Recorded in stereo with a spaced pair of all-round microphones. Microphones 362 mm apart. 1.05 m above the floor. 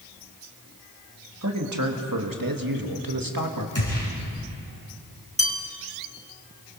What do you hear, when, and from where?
1.4 s a man speaking: 45° right (ahead or behind), 2 m; by 3.6 s 60° right (ahead or behind), 1.9 m
3.8 s a gunshot: 55° left (ahead or behind), 5.5 m
5.4 s a bell: 15° right (ahead or behind), 1.7 m